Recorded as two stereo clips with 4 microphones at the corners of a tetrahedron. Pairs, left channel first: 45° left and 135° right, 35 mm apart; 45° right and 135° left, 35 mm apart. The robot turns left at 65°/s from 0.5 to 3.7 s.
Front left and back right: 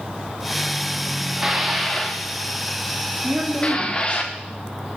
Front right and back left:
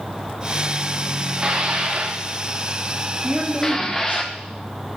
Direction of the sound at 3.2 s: 145° right.